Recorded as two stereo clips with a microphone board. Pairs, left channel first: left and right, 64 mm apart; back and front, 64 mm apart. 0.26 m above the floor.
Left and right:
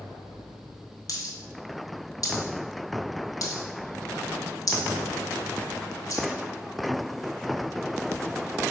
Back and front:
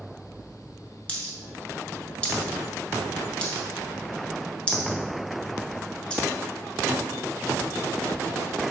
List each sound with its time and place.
1.1 s a dropped coin: 105° left, 0.8 m